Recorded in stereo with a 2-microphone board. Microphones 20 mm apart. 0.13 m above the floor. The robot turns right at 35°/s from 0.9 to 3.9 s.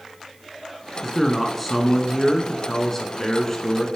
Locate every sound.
1.0 s a man speaking: 5° right (ahead or behind), 1.1 m; by 3.9 s 20° left (ahead or behind), 1.1 m